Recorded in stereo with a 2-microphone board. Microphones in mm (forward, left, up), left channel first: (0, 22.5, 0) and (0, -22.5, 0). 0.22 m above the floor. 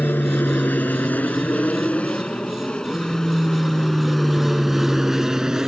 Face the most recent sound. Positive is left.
turn(degrees=-15)  # may be behind; listen again after turning